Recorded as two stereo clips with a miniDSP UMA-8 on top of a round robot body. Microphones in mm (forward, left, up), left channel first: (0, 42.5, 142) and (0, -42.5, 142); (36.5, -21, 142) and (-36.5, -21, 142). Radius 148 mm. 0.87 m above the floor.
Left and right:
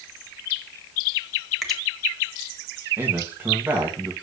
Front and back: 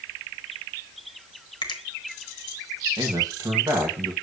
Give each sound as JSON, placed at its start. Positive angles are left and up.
{"t": 1.6, "sound": "a finger snap", "azimuth_deg": 0, "distance_m": 1.4}
{"t": 3.0, "sound": "a man speaking", "azimuth_deg": -155, "distance_m": 1.9}